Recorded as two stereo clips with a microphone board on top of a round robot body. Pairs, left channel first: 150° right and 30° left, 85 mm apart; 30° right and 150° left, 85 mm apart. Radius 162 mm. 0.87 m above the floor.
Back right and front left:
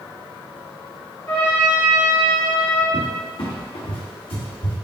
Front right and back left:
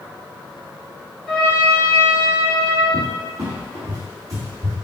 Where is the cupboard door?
160° right, 1.1 m.